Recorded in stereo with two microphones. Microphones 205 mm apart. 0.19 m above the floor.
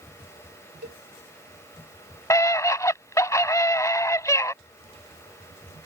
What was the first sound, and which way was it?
A cowbell, 55° right (ahead or behind).